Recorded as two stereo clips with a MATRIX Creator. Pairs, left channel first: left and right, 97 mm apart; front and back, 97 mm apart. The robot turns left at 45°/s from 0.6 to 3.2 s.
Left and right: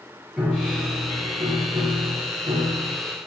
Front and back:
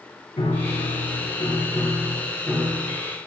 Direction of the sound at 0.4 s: 5° right.